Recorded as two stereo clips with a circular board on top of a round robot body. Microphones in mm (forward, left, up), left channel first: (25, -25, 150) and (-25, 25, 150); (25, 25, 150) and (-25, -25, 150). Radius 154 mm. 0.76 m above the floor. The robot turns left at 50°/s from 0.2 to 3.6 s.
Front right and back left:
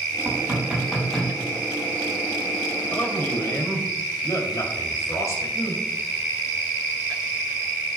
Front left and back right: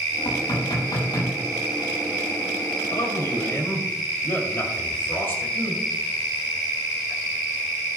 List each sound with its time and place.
0.2 s knocking: 85° left, 5.5 m; by 1.3 s 30° left, 5.5 m
2.9 s a man speaking: 25° left, 2.5 m; by 5.8 s 10° right, 2.5 m